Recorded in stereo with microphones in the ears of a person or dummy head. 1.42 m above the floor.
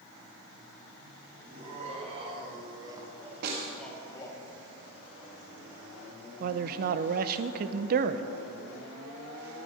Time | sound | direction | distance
1.4 | laughter | 40° right (ahead or behind) | 3.5 m
3.4 | a snare drum | 60° right (ahead or behind) | 2 m
6.4 | a man speaking | 55° right (ahead or behind) | 0.7 m